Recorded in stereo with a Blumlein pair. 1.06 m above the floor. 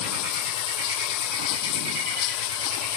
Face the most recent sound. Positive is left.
turn(degrees=40)